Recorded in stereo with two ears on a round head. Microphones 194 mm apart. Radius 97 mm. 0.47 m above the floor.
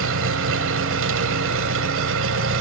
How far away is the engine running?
About 2 m.